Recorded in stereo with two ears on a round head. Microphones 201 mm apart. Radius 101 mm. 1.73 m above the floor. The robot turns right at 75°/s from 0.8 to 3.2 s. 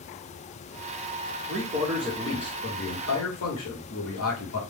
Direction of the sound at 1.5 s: 45° right.